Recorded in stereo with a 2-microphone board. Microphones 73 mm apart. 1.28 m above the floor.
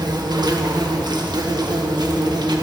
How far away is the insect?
About 1.3 m.